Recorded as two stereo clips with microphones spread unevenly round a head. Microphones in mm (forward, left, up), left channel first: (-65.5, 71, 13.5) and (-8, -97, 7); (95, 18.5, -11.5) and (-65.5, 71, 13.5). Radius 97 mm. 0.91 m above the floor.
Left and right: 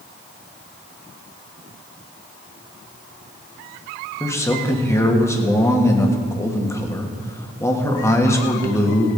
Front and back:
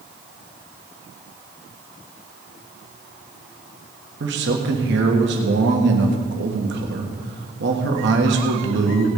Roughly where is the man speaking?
Behind.